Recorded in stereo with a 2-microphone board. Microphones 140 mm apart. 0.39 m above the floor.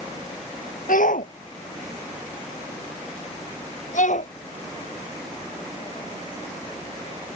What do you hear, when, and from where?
0.9 s a shout: 80° left; by 4.3 s 65° left (ahead or behind)